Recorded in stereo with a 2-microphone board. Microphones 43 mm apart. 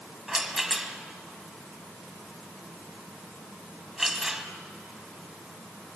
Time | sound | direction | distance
0.3 | a rattle | 5° right (ahead or behind) | 1.6 m